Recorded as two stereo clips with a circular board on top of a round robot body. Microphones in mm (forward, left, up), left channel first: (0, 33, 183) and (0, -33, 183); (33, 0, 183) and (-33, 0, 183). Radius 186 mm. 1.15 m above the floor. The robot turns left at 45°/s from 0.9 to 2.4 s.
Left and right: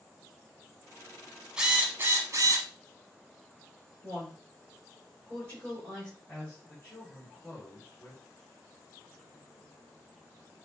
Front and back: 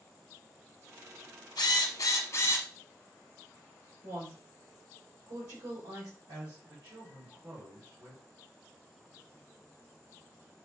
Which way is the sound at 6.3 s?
155° left.